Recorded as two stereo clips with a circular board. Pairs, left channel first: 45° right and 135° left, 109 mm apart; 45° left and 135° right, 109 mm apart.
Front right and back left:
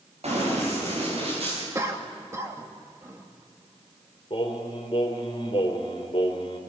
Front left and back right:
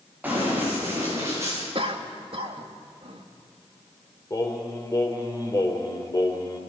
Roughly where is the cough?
Behind.